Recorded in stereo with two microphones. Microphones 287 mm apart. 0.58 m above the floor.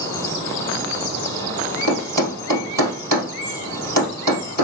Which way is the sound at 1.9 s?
80° right.